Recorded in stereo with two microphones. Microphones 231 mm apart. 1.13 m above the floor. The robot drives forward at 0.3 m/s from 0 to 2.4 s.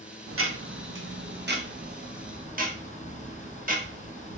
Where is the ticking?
75° right (ahead or behind), 0.7 m; by 4.4 s 40° right (ahead or behind), 1.0 m.